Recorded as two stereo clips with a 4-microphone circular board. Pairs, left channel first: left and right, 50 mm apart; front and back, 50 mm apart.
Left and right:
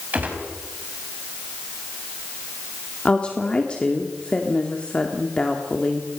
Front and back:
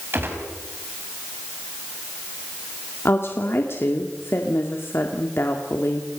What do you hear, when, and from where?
0.1 s a gunshot: 145° right, 5 m
3.0 s a woman speaking: 25° left, 2 m